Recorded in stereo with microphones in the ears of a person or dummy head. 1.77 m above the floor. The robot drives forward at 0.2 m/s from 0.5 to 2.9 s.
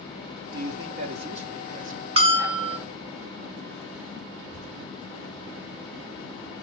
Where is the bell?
30° right (ahead or behind), 0.6 m; by 2.8 s 25° right (ahead or behind), 0.7 m.